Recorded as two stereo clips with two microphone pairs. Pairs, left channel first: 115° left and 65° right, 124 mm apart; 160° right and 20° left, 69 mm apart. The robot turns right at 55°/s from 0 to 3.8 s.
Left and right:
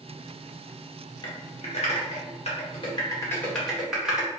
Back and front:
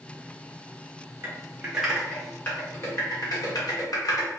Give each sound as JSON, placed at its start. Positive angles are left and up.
{"t": 1.2, "sound": "typing on a keyboard", "azimuth_deg": 70, "distance_m": 1.1}